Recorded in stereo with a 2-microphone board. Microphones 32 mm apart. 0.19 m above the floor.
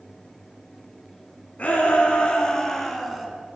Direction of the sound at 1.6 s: 45° left (ahead or behind).